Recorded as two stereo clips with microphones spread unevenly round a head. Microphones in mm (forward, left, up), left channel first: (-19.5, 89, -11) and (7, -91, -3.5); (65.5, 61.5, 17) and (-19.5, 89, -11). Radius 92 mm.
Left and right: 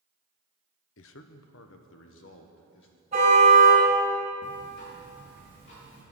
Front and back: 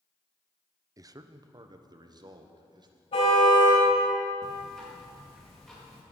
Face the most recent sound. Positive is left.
turn(degrees=65)